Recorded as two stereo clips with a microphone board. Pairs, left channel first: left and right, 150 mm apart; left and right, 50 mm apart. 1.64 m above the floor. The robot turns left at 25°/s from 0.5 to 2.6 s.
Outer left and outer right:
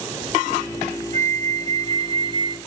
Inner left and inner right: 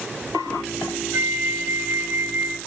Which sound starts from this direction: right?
A flute, at 1.1 s.